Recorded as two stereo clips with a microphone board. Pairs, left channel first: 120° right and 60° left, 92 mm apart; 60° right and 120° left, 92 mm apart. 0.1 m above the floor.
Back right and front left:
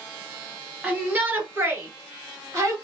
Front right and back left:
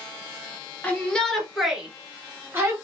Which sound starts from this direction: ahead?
A shout, at 0.8 s.